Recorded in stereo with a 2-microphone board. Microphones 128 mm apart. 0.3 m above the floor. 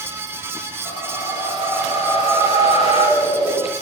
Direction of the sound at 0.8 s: 55° left (ahead or behind).